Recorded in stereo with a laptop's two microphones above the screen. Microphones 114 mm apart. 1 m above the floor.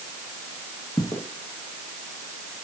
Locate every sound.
1.0 s footsteps: 40° left (ahead or behind), 3.5 m; by 2.6 s 55° left (ahead or behind), 4 m